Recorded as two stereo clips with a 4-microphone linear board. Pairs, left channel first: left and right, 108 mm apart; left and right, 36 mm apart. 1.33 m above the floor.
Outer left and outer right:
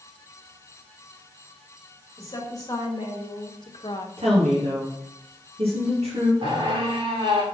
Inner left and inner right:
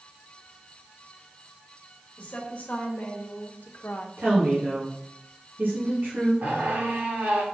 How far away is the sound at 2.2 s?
About 2.5 m.